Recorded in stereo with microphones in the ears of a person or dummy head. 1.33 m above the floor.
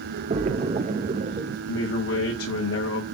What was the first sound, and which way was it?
A splash, 30° right (ahead or behind).